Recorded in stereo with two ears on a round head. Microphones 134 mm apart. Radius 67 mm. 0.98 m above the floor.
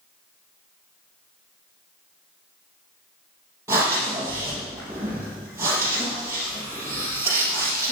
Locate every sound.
3.7 s breathing: 20° right (ahead or behind), 4.5 m